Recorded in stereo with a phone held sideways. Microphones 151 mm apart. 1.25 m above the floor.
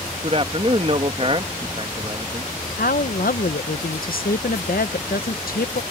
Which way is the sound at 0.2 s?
40° right (ahead or behind).